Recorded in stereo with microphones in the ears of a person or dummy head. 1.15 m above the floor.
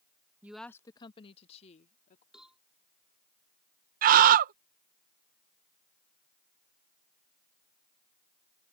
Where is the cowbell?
5° right (ahead or behind).